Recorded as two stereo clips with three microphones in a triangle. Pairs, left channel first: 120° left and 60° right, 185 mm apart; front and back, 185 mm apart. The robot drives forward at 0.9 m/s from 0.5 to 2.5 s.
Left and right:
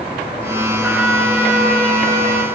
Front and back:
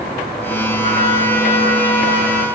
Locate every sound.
0.8 s a trumpet: 140° right, 1.8 m; by 2.5 s 160° right, 3 m